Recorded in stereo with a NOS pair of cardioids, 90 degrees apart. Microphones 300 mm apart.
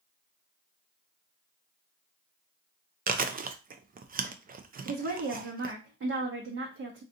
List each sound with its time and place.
3.1 s chewing: 30° right, 0.5 m
4.8 s a woman speaking: 50° right, 1.0 m